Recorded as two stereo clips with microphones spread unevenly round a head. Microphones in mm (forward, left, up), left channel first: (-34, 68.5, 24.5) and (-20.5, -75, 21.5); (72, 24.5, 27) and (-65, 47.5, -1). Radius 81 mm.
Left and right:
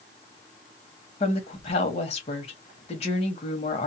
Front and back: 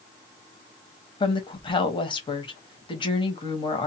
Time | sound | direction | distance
1.2 | a woman speaking | 40° left | 1.1 m